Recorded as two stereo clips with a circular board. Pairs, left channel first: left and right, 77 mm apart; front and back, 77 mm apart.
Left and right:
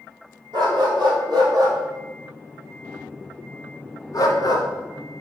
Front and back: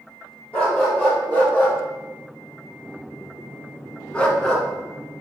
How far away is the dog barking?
About 1.8 m.